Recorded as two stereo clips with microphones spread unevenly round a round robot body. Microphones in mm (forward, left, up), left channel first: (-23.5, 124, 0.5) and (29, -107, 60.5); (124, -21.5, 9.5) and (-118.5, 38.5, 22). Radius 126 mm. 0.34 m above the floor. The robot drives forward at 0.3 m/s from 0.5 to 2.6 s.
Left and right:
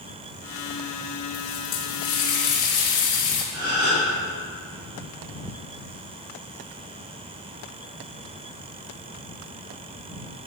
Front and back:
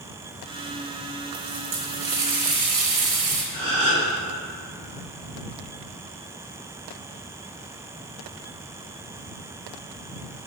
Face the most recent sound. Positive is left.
turn(degrees=-125)